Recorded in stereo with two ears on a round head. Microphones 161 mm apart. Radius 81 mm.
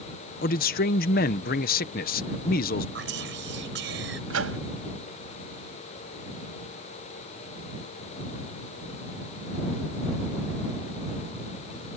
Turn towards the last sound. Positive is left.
turn(degrees=-85)